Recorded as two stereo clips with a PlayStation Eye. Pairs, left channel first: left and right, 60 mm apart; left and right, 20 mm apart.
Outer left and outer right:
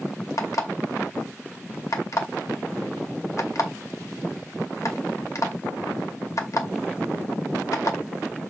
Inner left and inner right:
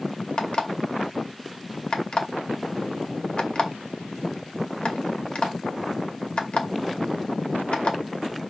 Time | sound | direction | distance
0.4 | an alarm clock | 60° left (ahead or behind) | 2 m